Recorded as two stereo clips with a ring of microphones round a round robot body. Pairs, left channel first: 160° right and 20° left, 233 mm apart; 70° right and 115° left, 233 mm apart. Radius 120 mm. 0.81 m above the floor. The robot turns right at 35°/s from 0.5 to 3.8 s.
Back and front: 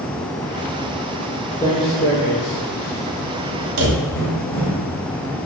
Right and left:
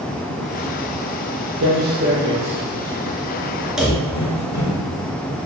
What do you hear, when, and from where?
1.6 s footsteps: 125° left, 1.1 m; by 4.8 s 90° right, 2 m
3.8 s a drawer: 25° left, 1.0 m